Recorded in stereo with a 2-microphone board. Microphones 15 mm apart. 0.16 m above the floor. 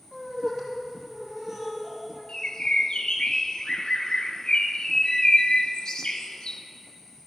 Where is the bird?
60° left (ahead or behind), 0.9 m.